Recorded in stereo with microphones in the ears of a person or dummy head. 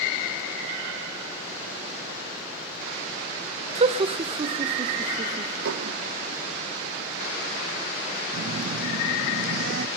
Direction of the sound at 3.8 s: 40° right (ahead or behind).